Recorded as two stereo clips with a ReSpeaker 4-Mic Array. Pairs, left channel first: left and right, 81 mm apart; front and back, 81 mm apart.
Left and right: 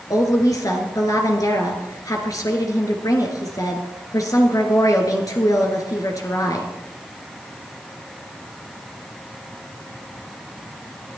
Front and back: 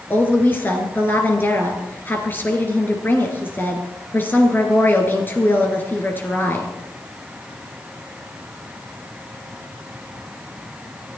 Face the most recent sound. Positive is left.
turn(degrees=60)